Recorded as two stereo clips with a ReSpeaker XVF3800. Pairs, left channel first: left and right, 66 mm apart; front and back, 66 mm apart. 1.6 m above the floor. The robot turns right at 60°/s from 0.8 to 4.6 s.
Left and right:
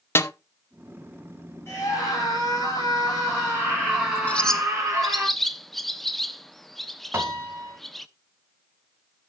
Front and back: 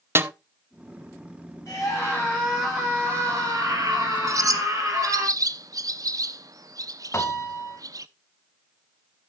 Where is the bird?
155° left, 0.6 m; by 8.1 s 175° left, 0.6 m.